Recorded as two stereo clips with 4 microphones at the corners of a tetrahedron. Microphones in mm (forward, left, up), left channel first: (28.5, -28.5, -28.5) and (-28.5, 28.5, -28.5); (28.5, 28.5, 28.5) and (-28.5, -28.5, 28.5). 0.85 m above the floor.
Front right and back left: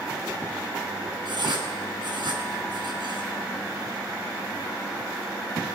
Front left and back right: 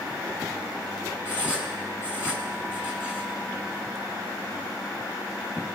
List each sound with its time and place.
1.2 s writing: 110° left, 3.5 m